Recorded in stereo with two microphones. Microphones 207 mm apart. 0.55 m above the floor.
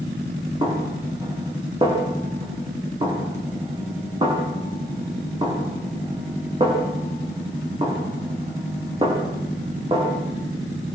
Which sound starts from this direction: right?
A snare drum, at 0.6 s.